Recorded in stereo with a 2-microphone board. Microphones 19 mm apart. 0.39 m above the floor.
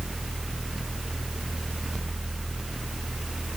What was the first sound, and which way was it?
Only background noise.